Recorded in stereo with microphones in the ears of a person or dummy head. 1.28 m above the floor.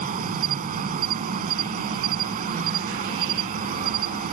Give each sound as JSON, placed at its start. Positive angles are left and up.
{"t": 0.0, "sound": "an insect", "side_deg": -45}